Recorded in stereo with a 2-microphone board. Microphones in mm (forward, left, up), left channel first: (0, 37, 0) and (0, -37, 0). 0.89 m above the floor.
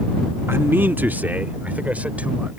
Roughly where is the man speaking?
Right.